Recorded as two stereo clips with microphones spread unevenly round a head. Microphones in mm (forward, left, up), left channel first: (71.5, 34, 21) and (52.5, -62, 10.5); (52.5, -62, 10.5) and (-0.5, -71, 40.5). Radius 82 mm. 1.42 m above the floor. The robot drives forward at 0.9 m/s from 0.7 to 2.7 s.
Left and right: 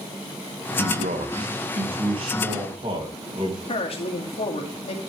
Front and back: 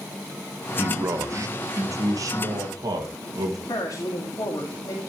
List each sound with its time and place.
0.8 s a man speaking: 115° right, 1.0 m; by 3.6 s 160° right, 2.5 m
3.7 s a woman speaking: 60° left, 2.5 m